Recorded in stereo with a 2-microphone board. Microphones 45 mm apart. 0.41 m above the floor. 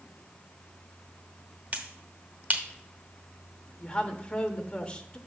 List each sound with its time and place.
1.7 s a finger snap: 35° right (ahead or behind), 0.9 m
3.8 s a woman speaking: 25° left (ahead or behind), 0.9 m